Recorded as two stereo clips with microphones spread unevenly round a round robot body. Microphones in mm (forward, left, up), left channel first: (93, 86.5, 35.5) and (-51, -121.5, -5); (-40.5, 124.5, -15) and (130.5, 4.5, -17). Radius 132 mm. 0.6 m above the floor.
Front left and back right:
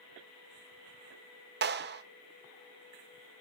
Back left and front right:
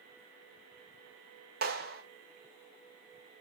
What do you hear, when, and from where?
1.6 s a clap: 85° right, 1.8 m